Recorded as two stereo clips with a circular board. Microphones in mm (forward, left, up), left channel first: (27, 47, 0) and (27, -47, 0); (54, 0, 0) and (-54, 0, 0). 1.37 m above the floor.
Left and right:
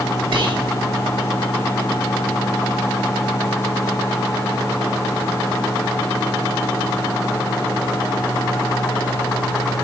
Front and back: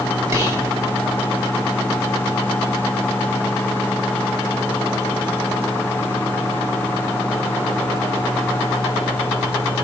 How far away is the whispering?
About 1.5 m.